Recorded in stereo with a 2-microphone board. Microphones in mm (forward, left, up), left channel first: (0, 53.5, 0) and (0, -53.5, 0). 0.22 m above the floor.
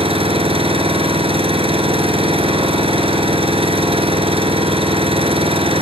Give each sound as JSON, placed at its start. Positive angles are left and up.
{"t": 0.0, "sound": "an engine running", "side_deg": -70, "distance_m": 2.5}